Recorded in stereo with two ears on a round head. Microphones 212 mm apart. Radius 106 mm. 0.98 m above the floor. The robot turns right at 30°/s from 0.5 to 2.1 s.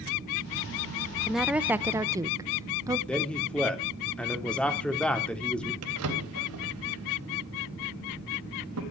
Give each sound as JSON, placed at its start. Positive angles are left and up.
{"t": 1.3, "sound": "a woman speaking", "side_deg": 0, "distance_m": 0.8}
{"t": 3.1, "sound": "a man speaking", "side_deg": 5, "distance_m": 3.0}
{"t": 5.8, "sound": "a drawer", "side_deg": -70, "distance_m": 3.5}